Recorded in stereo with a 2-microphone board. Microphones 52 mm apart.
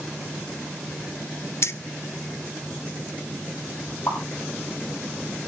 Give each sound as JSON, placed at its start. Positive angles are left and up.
{"t": 1.6, "sound": "keys jangling", "side_deg": 60, "distance_m": 0.9}
{"t": 4.1, "sound": "a pop", "side_deg": 65, "distance_m": 8.5}